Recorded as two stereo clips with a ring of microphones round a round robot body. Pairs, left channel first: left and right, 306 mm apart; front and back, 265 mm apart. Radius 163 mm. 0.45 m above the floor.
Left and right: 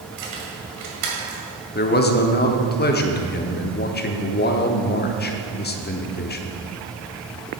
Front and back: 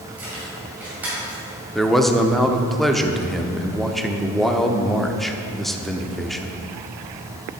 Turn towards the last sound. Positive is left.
turn(degrees=90)